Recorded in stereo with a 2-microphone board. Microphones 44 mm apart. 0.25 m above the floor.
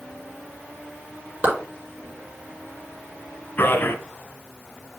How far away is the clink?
No clink in this recording.